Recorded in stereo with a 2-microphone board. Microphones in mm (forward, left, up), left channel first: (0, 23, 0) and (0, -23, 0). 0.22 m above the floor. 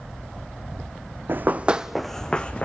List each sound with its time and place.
1.3 s running footsteps: 50° right (ahead or behind), 0.7 m; by 2.7 s 30° left (ahead or behind), 1.0 m